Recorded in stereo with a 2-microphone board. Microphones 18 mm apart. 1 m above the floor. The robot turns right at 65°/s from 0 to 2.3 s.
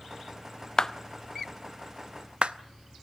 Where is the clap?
30° left (ahead or behind), 0.6 m; by 2.5 s 70° right (ahead or behind), 0.6 m.